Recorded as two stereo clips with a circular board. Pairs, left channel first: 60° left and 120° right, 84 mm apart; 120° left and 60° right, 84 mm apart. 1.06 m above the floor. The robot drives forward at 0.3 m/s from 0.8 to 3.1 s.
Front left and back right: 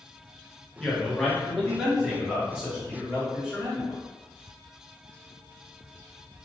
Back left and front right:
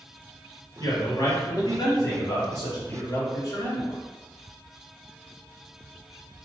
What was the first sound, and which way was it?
A man speaking, 140° left.